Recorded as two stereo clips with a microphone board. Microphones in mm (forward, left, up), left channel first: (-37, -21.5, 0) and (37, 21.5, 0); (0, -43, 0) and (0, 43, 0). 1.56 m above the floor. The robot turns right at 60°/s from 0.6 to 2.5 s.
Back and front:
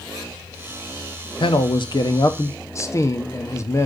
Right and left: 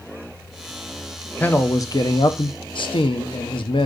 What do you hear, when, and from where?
1.4 s a man speaking: 160° right, 0.8 m; by 3.9 s 95° right, 0.8 m